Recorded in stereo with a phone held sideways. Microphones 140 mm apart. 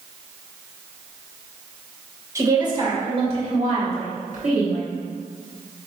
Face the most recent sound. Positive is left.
turn(degrees=-75)  # may be behind; listen again after turning